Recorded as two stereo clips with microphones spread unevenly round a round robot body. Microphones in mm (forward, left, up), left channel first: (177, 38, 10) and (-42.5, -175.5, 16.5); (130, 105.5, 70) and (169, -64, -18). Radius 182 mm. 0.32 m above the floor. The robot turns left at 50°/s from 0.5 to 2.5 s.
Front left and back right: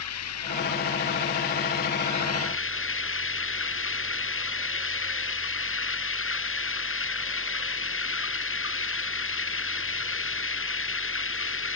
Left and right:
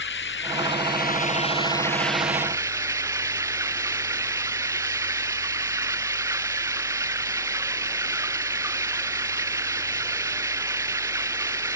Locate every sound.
0.0 s running water: 95° left; by 11.8 s 5° right